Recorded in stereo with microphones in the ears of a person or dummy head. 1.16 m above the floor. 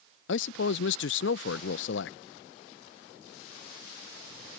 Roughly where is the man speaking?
Left.